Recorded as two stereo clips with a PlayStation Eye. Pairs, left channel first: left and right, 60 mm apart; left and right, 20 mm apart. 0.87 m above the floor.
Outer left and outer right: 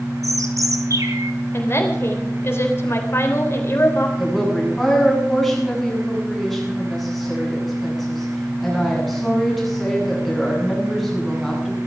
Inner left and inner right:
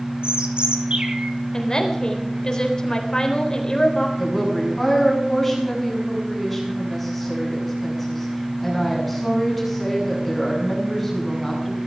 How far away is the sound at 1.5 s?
About 3.5 m.